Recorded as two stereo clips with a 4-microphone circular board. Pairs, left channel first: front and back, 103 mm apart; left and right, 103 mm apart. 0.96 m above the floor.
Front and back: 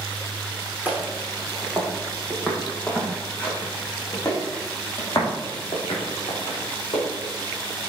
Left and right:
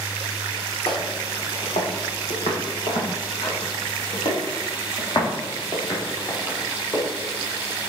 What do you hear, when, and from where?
0.8 s footsteps: 105° left, 3.5 m; by 7.0 s 35° left, 4.5 m